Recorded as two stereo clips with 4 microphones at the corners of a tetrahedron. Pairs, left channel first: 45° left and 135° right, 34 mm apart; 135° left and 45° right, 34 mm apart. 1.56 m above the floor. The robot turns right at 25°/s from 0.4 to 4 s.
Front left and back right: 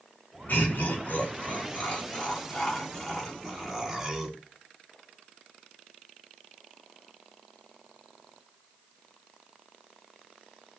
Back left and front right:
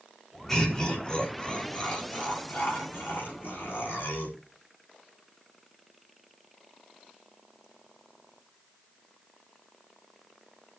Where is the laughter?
55° left, 4 m; by 4.4 s 140° left, 4 m.